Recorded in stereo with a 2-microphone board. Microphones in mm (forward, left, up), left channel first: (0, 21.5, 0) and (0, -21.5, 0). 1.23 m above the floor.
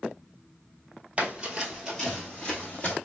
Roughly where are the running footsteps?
Right.